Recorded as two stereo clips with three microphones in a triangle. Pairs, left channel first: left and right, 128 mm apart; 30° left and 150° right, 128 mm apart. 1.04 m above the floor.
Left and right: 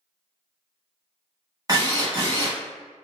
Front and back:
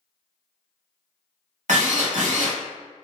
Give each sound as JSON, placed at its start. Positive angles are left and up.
{"t": 1.7, "sound": "a drill", "azimuth_deg": -150, "distance_m": 1.2}